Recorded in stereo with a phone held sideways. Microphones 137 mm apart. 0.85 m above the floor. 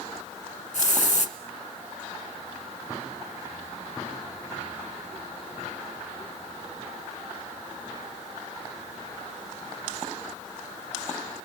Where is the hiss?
60° left (ahead or behind), 3.5 m.